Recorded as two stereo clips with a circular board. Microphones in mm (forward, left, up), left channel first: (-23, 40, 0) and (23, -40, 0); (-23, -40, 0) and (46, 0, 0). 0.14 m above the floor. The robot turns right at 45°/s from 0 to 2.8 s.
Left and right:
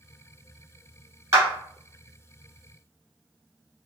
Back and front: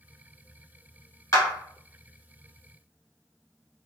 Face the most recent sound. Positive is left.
turn(degrees=-40)